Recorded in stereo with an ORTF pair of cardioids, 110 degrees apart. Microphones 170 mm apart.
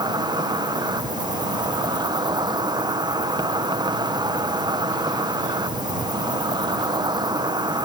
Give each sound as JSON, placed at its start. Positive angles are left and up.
{"t": 0.0, "sound": "an insect", "azimuth_deg": -25}